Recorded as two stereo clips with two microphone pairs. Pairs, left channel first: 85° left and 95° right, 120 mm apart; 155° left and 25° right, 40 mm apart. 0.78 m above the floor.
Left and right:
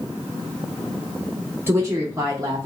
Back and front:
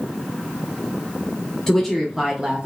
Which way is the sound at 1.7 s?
145° right.